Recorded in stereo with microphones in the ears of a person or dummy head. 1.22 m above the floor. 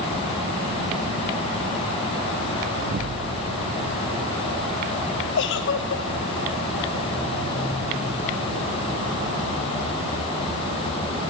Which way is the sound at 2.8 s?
55° right (ahead or behind).